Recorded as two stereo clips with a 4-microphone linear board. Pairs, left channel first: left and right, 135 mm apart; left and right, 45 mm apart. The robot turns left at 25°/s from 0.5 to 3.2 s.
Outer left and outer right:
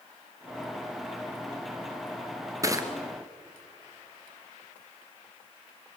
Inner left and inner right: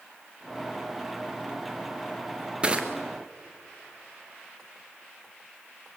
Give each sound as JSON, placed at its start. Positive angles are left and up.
{"t": 2.6, "sound": "crushing", "side_deg": -25, "distance_m": 1.8}